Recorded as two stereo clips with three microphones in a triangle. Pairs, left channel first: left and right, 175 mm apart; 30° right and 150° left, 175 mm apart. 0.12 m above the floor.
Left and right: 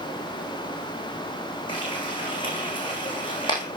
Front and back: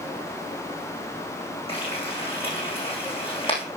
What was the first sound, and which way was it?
Frying, 30° left.